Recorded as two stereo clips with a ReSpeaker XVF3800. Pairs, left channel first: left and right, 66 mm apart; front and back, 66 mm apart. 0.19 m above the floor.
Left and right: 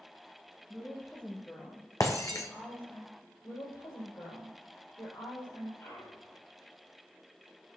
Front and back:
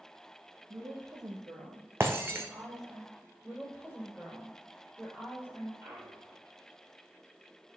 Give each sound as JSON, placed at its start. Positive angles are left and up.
{"t": 0.7, "sound": "a woman speaking", "azimuth_deg": 150, "distance_m": 2.0}
{"t": 2.0, "sound": "breaking glass", "azimuth_deg": 125, "distance_m": 1.5}
{"t": 3.4, "sound": "a woman speaking", "azimuth_deg": 70, "distance_m": 5.0}
{"t": 5.8, "sound": "a clunk", "azimuth_deg": 135, "distance_m": 3.5}